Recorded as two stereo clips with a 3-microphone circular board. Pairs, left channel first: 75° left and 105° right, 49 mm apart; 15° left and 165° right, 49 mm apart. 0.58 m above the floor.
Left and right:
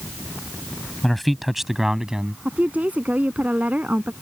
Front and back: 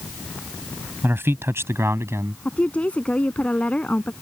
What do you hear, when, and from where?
1.0 s a man speaking: 160° left; by 2.4 s straight behind
2.5 s a woman speaking: 50° right